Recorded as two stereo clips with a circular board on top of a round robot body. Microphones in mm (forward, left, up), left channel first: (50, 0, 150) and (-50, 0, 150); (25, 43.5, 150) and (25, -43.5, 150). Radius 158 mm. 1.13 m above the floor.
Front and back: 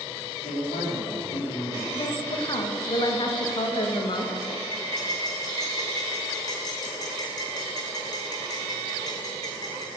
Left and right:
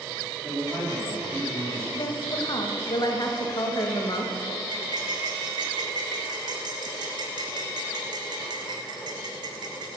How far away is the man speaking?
About 3 m.